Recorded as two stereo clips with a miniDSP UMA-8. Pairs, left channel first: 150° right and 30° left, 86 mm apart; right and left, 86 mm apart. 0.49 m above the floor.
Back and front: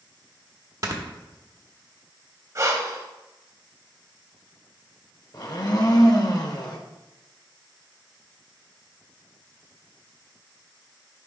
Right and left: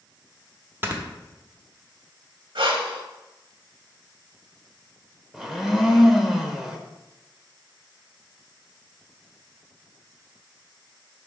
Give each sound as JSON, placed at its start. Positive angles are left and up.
{"t": 0.8, "sound": "snoring", "azimuth_deg": 40, "distance_m": 1.0}
{"t": 2.5, "sound": "breathing", "azimuth_deg": 80, "distance_m": 0.8}
{"t": 5.3, "sound": "a blender", "azimuth_deg": 175, "distance_m": 0.8}